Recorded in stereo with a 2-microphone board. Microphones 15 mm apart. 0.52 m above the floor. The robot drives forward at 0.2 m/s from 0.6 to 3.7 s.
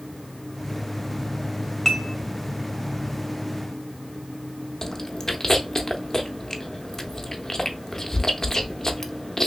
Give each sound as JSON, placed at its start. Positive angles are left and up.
{"t": 1.9, "sound": "dishes clattering", "side_deg": 20, "distance_m": 1.0}
{"t": 4.8, "sound": "chewing", "side_deg": 35, "distance_m": 0.6}